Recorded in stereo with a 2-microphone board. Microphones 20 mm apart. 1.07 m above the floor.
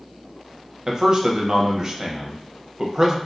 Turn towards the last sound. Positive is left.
turn(degrees=-30)  # may be behind; listen again after turning